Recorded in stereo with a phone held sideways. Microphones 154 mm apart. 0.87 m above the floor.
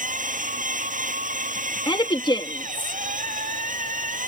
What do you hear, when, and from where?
0.0 s a machine running: 60° right (ahead or behind)
1.9 s a woman speaking: 30° left (ahead or behind)